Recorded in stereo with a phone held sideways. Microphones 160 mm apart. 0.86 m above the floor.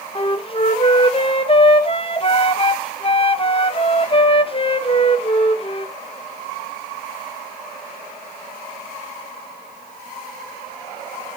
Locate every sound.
0.1 s a flute: 35° left (ahead or behind), 0.8 m